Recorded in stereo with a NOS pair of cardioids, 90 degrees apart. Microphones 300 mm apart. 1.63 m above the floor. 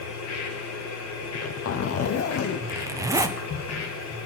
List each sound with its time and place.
0.0 s a machine running: 60° left, 2.5 m
1.2 s a zipper: 55° left, 1.0 m
2.7 s a zipper: 10° right, 1.1 m